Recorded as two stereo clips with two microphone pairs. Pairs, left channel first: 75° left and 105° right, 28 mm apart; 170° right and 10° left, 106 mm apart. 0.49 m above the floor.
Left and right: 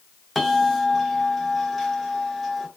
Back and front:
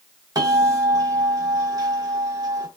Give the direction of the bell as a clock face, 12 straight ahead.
12 o'clock.